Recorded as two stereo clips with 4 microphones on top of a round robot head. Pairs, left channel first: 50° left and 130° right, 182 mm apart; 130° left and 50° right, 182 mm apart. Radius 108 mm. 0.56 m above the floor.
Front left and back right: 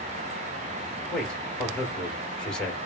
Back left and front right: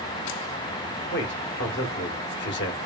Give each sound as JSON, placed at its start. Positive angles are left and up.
{"t": 1.1, "sound": "a man speaking", "azimuth_deg": 135, "distance_m": 2.0}